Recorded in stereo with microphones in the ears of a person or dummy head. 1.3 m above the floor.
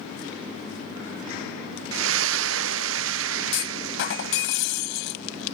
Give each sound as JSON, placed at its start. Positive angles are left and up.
{"t": 1.9, "sound": "a splash", "side_deg": -65}
{"t": 3.5, "sound": "a clunk", "side_deg": 65}